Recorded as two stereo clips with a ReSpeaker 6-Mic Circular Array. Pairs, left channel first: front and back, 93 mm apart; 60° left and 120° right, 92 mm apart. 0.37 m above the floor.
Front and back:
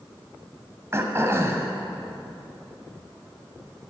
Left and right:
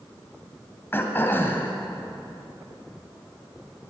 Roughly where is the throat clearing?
Behind left.